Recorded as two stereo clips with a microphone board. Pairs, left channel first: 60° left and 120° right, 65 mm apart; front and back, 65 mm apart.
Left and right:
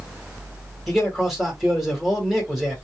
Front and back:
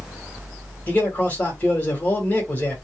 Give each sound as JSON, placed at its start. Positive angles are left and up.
{"t": 0.9, "sound": "a man speaking", "azimuth_deg": -35, "distance_m": 1.7}